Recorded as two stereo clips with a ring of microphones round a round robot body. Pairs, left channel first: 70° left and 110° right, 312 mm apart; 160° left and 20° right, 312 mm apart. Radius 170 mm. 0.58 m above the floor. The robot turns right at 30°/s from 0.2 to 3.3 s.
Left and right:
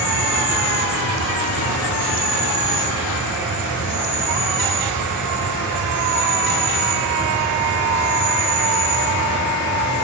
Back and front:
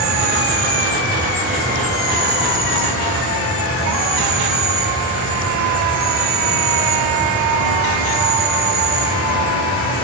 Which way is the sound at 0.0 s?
25° left.